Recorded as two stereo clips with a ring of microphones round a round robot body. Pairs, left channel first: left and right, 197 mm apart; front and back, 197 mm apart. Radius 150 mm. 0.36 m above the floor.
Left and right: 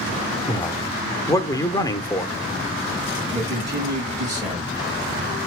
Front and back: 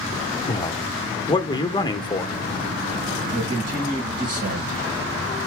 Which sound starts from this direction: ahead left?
A man speaking, at 0.5 s.